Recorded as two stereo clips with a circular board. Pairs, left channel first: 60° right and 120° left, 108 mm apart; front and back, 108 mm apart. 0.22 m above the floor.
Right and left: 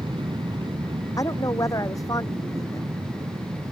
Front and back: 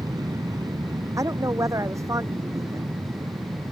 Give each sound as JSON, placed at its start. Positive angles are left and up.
{"t": 0.0, "sound": "an aircraft", "azimuth_deg": 135}
{"t": 1.2, "sound": "a woman speaking", "azimuth_deg": -120}